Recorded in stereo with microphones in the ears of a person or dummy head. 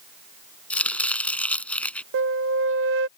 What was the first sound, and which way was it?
Chopping, 10° left (ahead or behind).